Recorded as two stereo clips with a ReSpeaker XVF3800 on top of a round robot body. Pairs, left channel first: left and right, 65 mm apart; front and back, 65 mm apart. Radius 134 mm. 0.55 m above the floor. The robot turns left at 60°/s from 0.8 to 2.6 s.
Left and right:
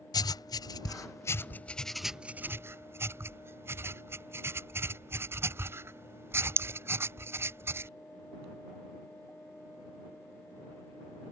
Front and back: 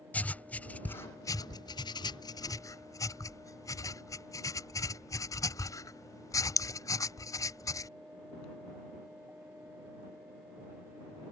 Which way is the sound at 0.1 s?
70° left.